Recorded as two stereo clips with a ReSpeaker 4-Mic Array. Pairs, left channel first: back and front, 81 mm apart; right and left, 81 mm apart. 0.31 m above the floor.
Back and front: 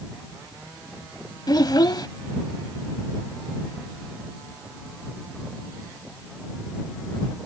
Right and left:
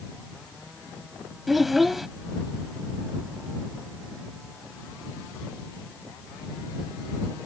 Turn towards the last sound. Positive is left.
turn(degrees=180)